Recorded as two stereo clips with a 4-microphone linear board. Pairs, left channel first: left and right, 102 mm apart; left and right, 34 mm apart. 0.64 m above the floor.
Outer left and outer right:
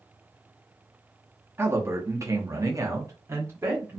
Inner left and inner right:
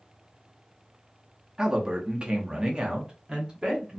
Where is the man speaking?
20° right (ahead or behind), 0.7 m; by 4.0 s 25° right (ahead or behind), 1.1 m.